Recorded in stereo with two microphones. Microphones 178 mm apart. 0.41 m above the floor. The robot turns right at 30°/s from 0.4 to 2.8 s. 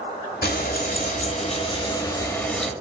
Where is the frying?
110° left, 0.7 m; by 2.7 s straight behind, 0.7 m.